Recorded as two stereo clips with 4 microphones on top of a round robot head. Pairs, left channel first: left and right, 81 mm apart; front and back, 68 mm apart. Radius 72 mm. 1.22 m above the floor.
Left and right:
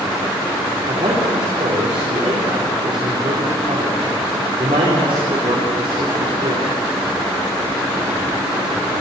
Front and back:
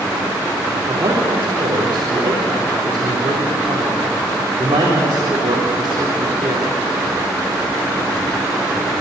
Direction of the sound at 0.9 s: 125° right.